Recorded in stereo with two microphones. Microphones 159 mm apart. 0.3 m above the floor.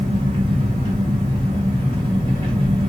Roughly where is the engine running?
Right.